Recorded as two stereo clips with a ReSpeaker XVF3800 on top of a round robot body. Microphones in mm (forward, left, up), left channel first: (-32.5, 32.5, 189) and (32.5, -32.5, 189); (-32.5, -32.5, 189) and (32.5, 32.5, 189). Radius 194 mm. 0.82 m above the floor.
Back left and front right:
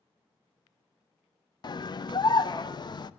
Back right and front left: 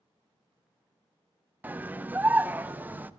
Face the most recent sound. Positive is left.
turn(degrees=115)